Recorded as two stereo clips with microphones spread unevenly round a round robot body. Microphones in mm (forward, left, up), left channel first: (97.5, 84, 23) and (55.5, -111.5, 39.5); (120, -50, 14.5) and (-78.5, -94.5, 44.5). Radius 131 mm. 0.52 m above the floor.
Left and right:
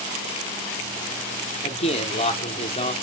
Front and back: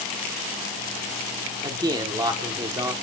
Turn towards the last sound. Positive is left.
turn(degrees=115)